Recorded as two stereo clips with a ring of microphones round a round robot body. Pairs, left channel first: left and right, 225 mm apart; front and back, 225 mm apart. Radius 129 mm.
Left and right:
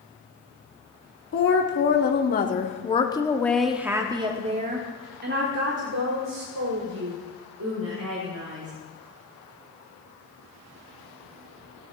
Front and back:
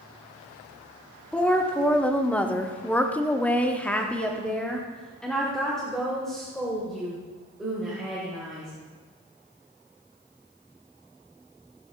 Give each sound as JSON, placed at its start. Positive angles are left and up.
{"t": 1.3, "sound": "a woman speaking", "azimuth_deg": 85, "distance_m": 2.0}